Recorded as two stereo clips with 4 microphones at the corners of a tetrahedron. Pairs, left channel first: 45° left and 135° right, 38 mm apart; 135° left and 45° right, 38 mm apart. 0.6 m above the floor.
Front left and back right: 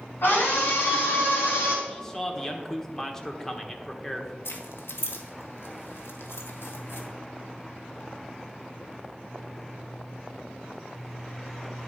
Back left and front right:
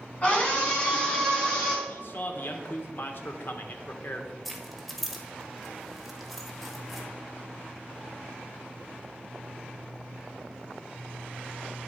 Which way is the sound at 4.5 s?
45° left.